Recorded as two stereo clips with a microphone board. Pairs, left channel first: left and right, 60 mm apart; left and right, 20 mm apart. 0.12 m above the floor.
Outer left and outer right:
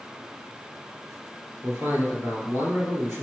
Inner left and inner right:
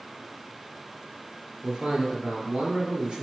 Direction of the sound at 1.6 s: 50° right (ahead or behind).